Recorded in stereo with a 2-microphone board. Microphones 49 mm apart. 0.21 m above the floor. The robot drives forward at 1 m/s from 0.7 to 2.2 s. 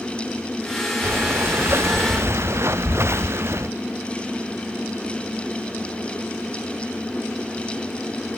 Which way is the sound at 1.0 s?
50° right (ahead or behind).